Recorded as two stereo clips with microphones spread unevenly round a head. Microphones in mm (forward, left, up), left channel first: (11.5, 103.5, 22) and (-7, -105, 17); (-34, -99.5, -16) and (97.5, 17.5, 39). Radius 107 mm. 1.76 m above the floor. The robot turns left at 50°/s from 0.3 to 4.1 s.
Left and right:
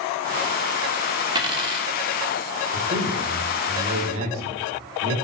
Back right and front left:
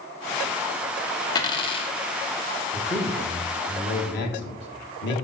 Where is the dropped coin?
60° right, 1.1 m; by 1.9 s 90° right, 1.1 m.